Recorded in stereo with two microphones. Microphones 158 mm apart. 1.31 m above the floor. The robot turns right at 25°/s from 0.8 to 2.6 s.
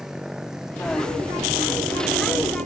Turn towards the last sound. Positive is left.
turn(degrees=-130)